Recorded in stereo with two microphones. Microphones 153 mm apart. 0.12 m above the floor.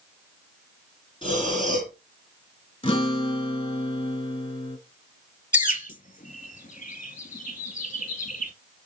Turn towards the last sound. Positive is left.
turn(degrees=60)  # may be behind; listen again after turning